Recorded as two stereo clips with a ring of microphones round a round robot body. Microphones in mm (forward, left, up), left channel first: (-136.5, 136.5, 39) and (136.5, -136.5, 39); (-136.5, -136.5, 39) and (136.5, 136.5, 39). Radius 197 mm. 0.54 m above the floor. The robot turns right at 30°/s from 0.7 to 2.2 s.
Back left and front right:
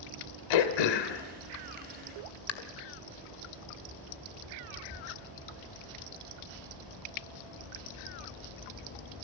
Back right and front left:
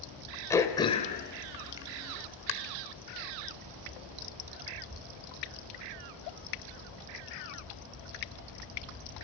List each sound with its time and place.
0.5 s throat clearing: 145° left, 1.7 m; by 2.5 s 170° right, 1.7 m